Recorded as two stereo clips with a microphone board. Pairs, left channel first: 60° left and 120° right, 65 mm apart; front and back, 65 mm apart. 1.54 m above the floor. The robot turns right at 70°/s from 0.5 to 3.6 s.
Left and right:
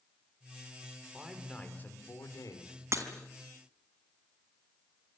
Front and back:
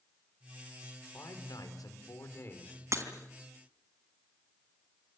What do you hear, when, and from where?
1.1 s a man speaking: 45° right, 5 m; by 2.8 s 75° left, 5 m
2.9 s breaking glass: 150° right, 3.5 m; by 3.0 s 145° right, 3.5 m